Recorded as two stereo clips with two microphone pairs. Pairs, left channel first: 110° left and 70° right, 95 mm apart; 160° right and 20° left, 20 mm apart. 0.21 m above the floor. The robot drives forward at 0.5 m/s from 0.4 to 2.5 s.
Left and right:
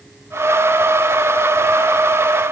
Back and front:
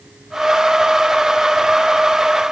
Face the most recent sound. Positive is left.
No sound to turn to.